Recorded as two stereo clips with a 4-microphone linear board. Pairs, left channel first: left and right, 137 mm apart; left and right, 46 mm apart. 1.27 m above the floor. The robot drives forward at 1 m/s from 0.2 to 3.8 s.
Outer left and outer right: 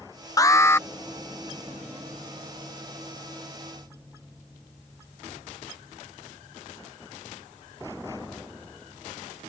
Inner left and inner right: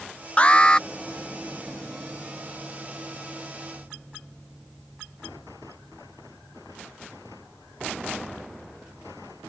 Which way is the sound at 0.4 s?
25° left (ahead or behind).